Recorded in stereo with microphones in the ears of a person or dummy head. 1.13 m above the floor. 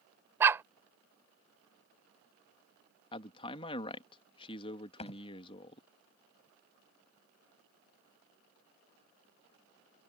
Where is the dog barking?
10° right (ahead or behind).